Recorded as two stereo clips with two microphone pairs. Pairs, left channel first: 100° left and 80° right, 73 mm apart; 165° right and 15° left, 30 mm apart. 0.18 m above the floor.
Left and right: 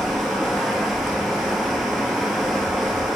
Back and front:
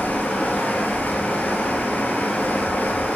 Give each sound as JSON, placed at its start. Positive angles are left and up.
{"t": 0.0, "sound": "running water", "azimuth_deg": -165, "distance_m": 1.3}